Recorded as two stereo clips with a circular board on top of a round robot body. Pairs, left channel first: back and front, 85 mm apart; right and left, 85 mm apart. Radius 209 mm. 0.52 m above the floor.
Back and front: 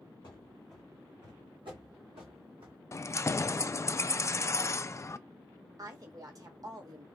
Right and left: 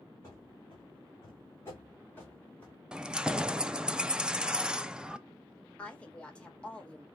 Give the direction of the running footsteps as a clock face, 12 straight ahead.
5 o'clock.